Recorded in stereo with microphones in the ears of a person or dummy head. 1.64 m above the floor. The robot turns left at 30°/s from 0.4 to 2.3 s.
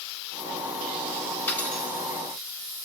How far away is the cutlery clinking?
About 5 m.